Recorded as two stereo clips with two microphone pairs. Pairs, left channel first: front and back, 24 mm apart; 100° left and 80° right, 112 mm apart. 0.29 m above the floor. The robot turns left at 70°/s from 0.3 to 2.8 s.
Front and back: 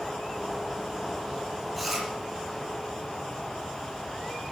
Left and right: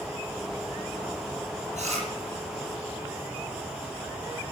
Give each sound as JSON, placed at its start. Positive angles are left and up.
{"t": 1.8, "sound": "chewing", "azimuth_deg": -85, "distance_m": 6.5}